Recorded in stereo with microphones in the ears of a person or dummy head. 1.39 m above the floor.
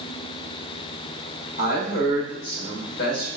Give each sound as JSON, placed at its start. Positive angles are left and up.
{"t": 1.6, "sound": "a woman speaking", "side_deg": 50, "distance_m": 1.4}